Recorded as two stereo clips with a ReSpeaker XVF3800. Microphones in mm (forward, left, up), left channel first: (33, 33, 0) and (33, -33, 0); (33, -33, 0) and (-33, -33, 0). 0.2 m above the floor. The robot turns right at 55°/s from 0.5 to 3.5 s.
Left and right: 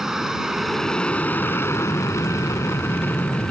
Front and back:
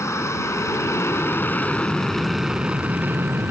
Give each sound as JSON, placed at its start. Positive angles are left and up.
{"t": 0.0, "sound": "an aircraft", "azimuth_deg": -10}